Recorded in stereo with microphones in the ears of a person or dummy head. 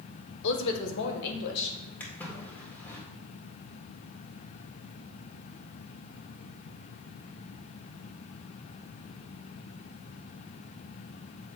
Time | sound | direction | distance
0.4 | a woman speaking | 65° left (ahead or behind) | 1.1 m
2.0 | a splash | 10° left (ahead or behind) | 1.8 m